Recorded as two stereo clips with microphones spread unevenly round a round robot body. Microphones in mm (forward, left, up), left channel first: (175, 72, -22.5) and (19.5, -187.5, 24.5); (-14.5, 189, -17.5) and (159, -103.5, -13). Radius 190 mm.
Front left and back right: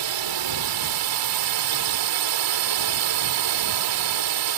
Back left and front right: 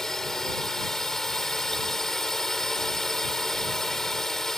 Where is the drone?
150° right.